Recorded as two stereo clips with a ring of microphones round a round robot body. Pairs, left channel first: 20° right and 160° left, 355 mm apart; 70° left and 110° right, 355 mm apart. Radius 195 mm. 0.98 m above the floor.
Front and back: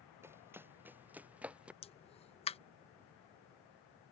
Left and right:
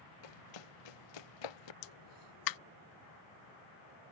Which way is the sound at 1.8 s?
50° left.